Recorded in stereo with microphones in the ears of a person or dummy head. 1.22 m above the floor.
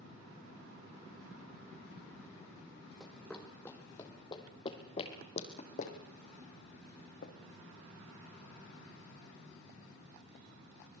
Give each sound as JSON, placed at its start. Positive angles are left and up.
{"t": 3.0, "sound": "running footsteps", "side_deg": 5, "distance_m": 3.0}